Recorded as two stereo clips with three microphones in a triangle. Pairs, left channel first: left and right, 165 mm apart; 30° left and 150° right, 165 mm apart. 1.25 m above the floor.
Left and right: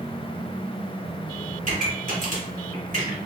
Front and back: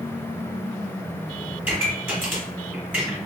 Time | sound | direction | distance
1.6 | a pop | 70° right | 1.9 m